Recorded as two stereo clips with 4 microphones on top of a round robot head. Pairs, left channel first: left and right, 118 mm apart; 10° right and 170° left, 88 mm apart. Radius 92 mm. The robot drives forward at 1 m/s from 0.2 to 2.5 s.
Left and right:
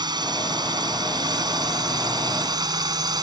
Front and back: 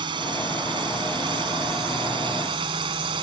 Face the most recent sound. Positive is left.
turn(degrees=-145)